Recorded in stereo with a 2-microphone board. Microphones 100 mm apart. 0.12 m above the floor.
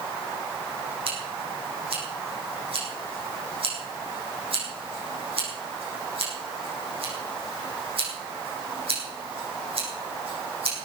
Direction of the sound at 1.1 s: 70° right (ahead or behind).